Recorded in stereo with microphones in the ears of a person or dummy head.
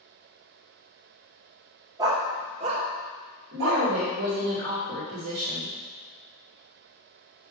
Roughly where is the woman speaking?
Right.